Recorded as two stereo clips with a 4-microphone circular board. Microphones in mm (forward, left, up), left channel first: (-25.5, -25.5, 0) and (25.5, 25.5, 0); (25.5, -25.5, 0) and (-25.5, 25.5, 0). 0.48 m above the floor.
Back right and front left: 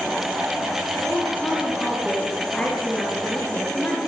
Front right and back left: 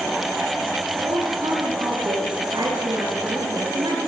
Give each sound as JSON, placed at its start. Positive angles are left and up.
{"t": 1.0, "sound": "a woman speaking", "azimuth_deg": 145, "distance_m": 7.5}